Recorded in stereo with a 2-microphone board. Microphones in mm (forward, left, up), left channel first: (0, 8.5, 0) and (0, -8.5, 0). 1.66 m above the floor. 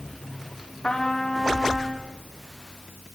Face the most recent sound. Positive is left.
turn(degrees=55)  # may be behind; listen again after turning